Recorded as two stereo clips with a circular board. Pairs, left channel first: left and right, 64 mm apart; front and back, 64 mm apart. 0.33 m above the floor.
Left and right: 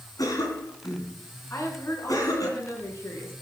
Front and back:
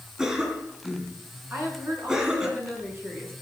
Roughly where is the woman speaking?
Behind left.